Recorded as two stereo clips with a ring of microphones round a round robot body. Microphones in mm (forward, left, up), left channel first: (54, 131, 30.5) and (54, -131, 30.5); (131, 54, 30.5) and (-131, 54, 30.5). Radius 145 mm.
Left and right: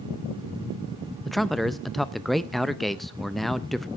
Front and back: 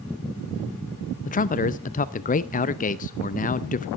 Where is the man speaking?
Straight ahead, 0.5 m.